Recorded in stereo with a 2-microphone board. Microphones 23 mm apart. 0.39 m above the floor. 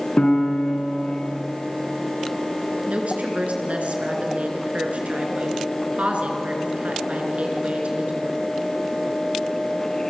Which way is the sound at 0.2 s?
50° left (ahead or behind).